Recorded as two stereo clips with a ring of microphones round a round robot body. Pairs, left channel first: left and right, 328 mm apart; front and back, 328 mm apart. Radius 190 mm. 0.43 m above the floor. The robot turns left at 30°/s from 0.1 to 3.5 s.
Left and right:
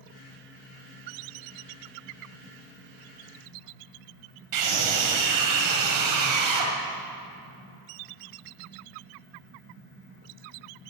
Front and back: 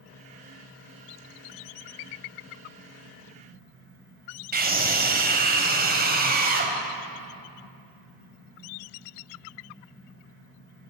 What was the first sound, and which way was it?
A scream, 120° right.